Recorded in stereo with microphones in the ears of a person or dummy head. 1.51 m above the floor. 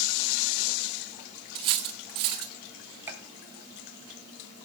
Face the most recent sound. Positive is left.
turn(degrees=-10)  # may be behind; listen again after turning